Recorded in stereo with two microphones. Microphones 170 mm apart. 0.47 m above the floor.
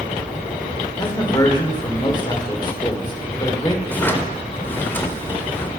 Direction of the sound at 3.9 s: 10° left (ahead or behind).